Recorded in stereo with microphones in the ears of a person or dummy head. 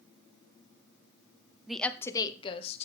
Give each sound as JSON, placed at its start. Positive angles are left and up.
{"t": 1.7, "sound": "a woman speaking", "side_deg": -5, "distance_m": 0.8}